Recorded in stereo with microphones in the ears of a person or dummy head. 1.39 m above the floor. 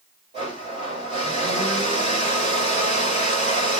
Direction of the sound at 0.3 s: 30° right (ahead or behind).